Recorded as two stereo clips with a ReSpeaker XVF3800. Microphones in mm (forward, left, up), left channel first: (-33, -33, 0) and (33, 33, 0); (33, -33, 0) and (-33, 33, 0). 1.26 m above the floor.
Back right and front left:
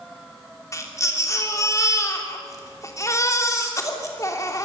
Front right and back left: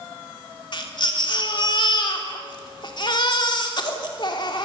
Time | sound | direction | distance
0.7 | a baby crying | 80° right | 2.5 m